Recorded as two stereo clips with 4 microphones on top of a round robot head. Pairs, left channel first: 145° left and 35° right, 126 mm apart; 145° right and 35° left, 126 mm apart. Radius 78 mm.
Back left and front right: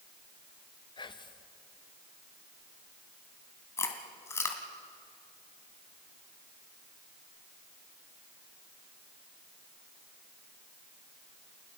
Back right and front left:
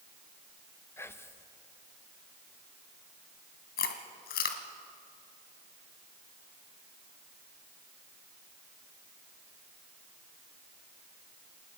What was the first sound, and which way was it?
Whispering, 160° left.